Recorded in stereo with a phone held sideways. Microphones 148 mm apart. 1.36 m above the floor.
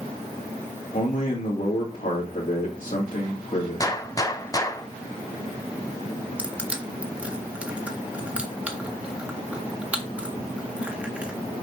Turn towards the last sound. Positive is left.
turn(degrees=-10)  # may be behind; listen again after turning